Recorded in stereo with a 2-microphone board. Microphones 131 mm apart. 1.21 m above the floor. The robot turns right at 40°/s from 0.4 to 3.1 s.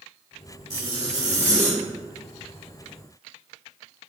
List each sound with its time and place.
0.7 s a zipper: 25° right (ahead or behind), 1.0 m; by 1.8 s 20° right (ahead or behind), 1.0 m